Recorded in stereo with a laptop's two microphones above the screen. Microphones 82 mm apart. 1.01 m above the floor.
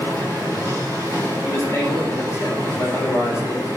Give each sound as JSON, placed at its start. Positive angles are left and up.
{"t": 0.0, "sound": "a machine running", "side_deg": 45, "distance_m": 1.9}
{"t": 1.4, "sound": "a man speaking", "side_deg": 30, "distance_m": 0.9}